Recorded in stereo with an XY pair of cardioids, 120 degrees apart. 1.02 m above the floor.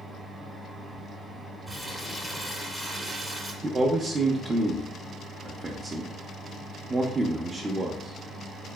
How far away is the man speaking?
About 0.6 m.